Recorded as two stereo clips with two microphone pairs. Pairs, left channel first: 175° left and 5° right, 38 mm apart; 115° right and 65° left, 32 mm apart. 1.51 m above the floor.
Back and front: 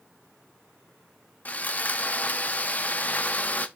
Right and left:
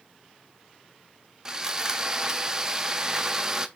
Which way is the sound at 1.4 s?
135° left.